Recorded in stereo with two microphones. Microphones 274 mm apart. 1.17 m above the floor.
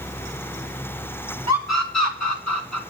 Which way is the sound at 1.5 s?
70° left (ahead or behind).